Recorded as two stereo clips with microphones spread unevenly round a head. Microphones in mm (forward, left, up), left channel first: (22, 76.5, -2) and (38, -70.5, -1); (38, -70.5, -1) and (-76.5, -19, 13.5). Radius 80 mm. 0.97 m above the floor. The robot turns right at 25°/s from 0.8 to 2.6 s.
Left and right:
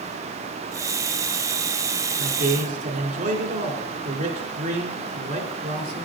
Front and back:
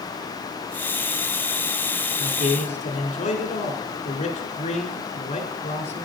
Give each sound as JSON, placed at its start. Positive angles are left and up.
{"t": 2.2, "sound": "a man speaking", "azimuth_deg": -65, "distance_m": 3.0}